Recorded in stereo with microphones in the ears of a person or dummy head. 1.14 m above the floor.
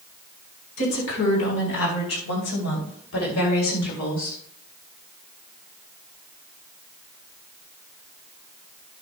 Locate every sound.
0.8 s a woman speaking: 85° left, 4.5 m; by 4.4 s 70° left (ahead or behind), 2.5 m